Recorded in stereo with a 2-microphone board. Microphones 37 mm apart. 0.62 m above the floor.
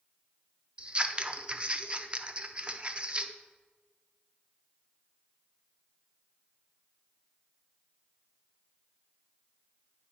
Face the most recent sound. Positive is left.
turn(degrees=-30)  # may be behind; listen again after turning